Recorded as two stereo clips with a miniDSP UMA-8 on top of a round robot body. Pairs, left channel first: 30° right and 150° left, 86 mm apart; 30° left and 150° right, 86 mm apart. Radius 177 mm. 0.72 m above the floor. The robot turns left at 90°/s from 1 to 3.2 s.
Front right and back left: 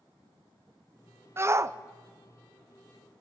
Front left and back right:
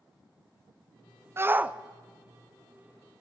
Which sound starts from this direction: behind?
A shout, at 1.4 s.